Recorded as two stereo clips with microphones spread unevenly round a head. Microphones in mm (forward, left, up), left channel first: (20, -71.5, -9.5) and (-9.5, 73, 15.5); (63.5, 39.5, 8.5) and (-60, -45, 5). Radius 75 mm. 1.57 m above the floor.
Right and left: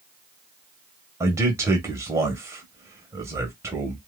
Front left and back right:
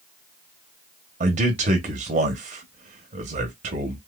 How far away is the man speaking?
About 0.9 m.